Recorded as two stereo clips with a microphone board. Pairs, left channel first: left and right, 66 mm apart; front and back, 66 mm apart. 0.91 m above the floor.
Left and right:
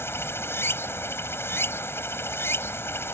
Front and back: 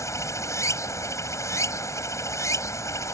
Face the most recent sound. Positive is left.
turn(degrees=40)